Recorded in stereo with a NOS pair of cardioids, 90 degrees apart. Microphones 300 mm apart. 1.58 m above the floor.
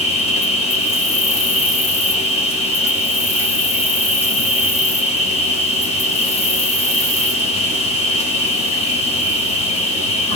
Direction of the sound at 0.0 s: 20° left.